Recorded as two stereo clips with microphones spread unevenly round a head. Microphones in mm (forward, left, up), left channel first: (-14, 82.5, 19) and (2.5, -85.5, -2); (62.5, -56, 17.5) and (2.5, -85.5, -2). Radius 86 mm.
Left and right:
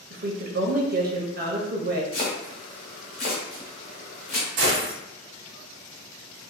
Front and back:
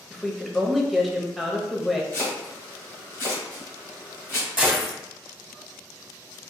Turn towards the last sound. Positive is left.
turn(degrees=-80)